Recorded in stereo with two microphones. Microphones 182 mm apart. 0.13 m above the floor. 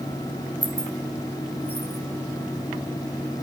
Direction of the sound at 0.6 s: 10° right (ahead or behind).